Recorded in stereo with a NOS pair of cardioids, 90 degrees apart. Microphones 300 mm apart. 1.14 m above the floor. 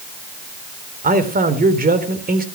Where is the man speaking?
30° right, 3.5 m.